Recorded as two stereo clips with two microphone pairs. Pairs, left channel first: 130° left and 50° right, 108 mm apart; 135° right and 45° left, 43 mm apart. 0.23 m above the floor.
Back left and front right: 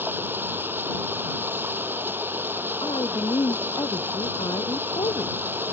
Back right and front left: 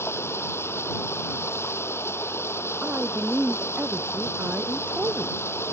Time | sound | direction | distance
0.0 | running water | 120° right | ?
2.8 | a woman speaking | 90° left | ?